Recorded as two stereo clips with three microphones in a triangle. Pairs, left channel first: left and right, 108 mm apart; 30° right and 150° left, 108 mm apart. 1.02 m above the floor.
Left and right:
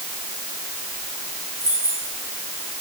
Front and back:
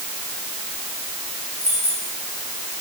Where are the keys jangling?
30° right, 6.5 m.